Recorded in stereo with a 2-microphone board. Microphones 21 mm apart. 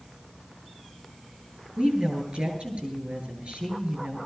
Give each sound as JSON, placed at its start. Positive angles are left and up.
{"t": 1.8, "sound": "a woman speaking", "side_deg": -65, "distance_m": 9.0}